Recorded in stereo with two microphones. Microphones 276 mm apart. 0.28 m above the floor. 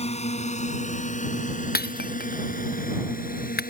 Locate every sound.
0.0 s a drone: 25° left (ahead or behind); by 3.7 s 30° left (ahead or behind)
1.8 s breaking glass: 35° left (ahead or behind)